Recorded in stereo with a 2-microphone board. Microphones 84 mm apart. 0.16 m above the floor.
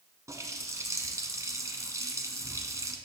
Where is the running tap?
40° right (ahead or behind), 1.1 m.